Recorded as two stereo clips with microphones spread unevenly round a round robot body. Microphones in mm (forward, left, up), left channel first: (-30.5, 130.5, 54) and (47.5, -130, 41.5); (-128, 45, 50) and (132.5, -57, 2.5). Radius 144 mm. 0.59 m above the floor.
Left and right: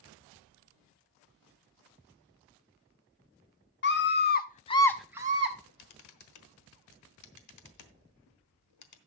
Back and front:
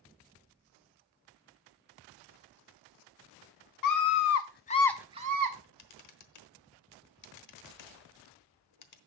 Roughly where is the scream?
Behind left.